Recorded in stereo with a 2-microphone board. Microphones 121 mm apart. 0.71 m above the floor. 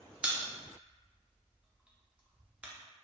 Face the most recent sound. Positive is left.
turn(degrees=-10)  # may be behind; listen again after turning